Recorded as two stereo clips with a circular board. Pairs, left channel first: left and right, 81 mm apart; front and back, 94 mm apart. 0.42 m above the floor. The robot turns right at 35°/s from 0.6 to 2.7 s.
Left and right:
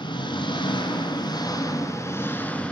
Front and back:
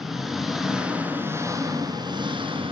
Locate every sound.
0.0 s an engine running: 90° left, 2.5 m; by 2.7 s 165° left, 2.5 m